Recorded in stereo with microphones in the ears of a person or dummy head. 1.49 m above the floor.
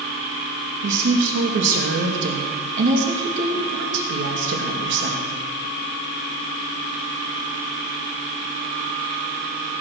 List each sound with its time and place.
0.8 s a woman speaking: 70° right (ahead or behind), 2.5 m